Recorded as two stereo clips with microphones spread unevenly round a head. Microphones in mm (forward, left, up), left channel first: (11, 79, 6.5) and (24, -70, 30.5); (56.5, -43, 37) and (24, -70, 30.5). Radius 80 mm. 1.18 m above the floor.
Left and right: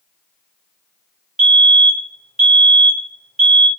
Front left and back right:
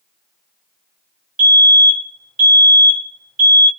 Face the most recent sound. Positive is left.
turn(degrees=-175)